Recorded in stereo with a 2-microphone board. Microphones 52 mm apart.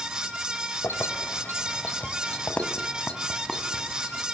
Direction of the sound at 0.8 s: 65° left (ahead or behind).